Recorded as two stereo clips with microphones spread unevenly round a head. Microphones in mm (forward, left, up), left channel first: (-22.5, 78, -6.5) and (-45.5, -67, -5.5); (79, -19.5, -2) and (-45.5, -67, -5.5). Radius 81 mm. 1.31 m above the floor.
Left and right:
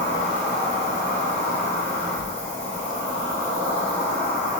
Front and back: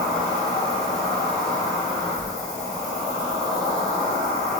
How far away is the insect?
About 1.1 m.